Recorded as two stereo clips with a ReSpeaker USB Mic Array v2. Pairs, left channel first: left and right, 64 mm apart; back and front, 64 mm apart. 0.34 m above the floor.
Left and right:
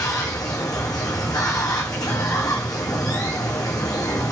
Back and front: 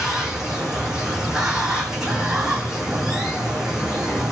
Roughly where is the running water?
Left.